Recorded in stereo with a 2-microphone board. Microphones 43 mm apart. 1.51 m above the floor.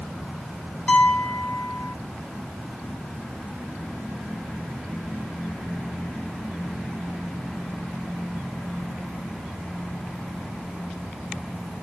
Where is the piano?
30° left (ahead or behind), 0.7 m.